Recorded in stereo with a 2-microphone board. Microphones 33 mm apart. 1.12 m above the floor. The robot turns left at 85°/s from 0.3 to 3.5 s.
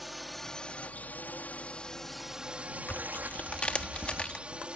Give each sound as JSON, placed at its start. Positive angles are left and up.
{"t": 0.0, "sound": "a drone", "side_deg": -5}
{"t": 2.9, "sound": "tearing paper", "azimuth_deg": 90}